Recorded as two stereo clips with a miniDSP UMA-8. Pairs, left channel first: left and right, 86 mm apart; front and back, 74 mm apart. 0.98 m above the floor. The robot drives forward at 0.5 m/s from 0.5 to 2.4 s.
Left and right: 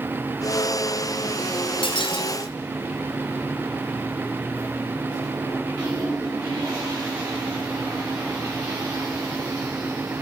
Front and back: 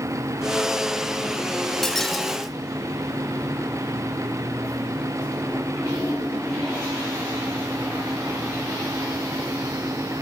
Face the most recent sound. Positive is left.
turn(degrees=90)